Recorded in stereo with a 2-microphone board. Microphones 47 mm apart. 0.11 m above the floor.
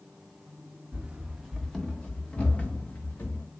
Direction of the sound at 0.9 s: 30° right (ahead or behind).